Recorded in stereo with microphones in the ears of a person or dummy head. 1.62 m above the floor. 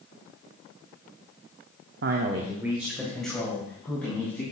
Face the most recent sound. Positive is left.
turn(degrees=10)  # may be behind; listen again after turning